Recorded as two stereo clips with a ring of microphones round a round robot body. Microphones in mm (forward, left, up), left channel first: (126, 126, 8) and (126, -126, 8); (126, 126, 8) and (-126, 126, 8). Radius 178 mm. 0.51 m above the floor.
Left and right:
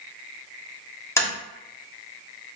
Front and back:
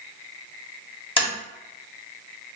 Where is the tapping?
25° left, 1.2 m.